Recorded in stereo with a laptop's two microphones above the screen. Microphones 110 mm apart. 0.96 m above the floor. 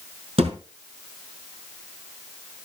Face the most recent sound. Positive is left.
turn(degrees=-65)  # may be behind; listen again after turning